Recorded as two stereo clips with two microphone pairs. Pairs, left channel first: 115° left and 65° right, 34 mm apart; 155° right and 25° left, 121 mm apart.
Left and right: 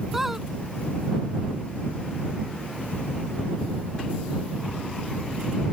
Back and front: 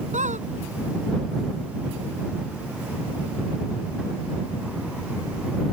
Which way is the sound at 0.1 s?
15° left.